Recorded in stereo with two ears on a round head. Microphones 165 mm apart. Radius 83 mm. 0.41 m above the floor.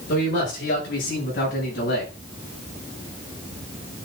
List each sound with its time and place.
0.1 s a man speaking: 70° left (ahead or behind), 6.5 m; by 2.1 s 65° left (ahead or behind), 7 m